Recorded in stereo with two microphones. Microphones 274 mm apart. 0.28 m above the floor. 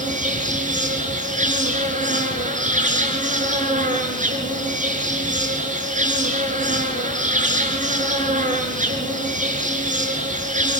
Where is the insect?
25° right (ahead or behind), 5.5 m.